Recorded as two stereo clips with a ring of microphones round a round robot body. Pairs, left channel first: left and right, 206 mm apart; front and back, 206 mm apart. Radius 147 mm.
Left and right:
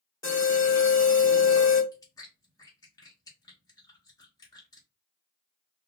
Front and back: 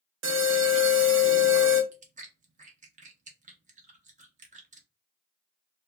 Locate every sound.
0.2 s an alarm: 165° left, 0.9 m
1.9 s chewing: 155° left, 0.7 m